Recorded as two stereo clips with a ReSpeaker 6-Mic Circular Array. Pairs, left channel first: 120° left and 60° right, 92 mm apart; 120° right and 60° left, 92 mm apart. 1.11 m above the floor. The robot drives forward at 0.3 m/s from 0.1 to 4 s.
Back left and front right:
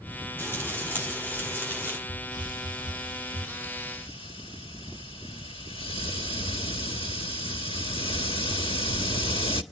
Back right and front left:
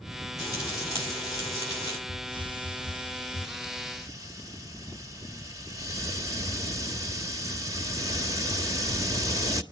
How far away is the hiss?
About 1.3 m.